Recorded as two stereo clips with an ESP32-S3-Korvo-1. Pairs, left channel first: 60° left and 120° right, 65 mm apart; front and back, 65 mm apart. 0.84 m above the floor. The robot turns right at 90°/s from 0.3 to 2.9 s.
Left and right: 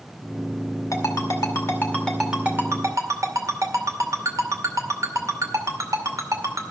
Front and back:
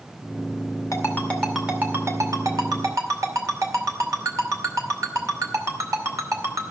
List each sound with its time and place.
0.9 s a ringtone: 35° left, 2 m; by 6.7 s 145° right, 2 m